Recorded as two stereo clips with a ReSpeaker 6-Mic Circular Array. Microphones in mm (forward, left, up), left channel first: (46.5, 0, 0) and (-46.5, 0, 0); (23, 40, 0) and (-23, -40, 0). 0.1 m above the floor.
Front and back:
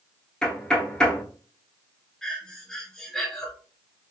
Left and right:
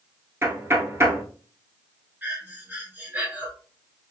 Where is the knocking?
80° right, 0.9 m.